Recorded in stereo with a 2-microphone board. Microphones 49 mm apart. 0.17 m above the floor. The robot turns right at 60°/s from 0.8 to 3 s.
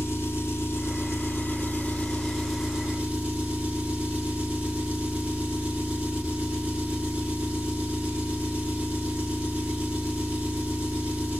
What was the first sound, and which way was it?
An engine running, 80° left.